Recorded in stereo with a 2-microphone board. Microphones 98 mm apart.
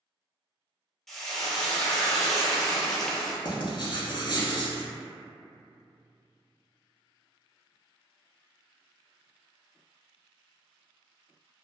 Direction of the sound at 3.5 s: 50° left (ahead or behind).